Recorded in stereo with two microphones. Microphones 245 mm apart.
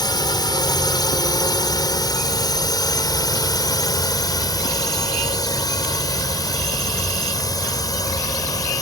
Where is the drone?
15° left (ahead or behind).